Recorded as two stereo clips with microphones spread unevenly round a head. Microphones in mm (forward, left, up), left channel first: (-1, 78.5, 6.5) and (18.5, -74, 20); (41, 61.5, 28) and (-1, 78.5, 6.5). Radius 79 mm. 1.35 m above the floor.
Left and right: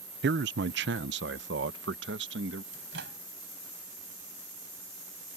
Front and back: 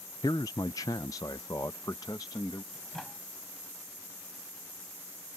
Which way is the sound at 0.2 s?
65° right.